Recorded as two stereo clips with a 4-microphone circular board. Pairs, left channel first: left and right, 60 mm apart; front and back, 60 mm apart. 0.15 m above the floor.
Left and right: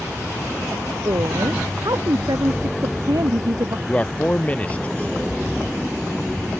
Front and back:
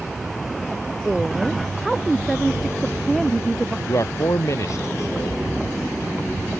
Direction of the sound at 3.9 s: 25° left.